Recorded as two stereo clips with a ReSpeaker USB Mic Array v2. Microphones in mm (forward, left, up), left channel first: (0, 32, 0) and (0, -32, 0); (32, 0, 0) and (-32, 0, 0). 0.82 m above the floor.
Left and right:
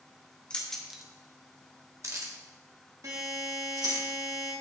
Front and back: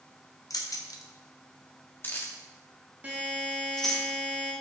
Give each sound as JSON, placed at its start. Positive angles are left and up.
{"t": 0.5, "sound": "keys jangling", "azimuth_deg": 20, "distance_m": 1.0}
{"t": 3.0, "sound": "a buzzer", "azimuth_deg": -115, "distance_m": 1.9}